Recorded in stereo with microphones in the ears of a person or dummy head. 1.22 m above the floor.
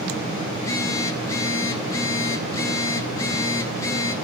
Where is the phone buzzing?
15° left (ahead or behind), 1.2 m.